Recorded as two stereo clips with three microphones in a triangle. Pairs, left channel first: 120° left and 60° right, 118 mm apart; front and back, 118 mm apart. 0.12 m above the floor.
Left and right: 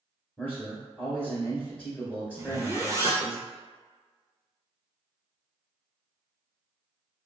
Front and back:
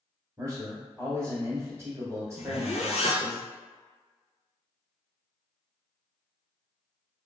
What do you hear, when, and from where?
0.4 s a man speaking: straight behind, 1.5 m
2.4 s a zipper: straight ahead, 0.6 m